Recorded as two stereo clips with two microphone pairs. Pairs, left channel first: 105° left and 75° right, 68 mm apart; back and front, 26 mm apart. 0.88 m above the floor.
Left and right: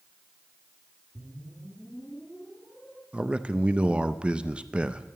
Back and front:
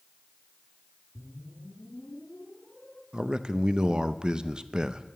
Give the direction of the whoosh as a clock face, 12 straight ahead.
6 o'clock.